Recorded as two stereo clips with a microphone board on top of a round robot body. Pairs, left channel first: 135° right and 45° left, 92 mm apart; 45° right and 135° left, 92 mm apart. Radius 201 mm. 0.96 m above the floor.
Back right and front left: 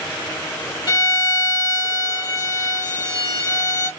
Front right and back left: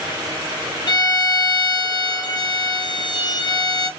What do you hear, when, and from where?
0.9 s a violin: 90° right, 0.7 m